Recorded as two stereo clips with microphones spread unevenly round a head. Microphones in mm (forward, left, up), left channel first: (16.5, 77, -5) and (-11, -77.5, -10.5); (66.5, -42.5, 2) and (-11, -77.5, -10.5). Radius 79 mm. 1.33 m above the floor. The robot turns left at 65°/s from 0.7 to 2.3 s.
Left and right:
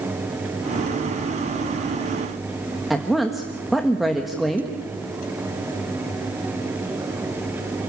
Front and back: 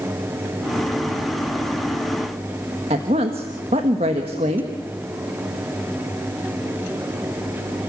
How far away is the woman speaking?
About 1.4 m.